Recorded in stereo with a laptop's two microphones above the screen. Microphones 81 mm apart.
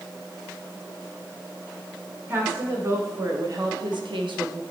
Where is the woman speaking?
30° right (ahead or behind), 3 m; by 4.6 s 60° right (ahead or behind), 1.1 m.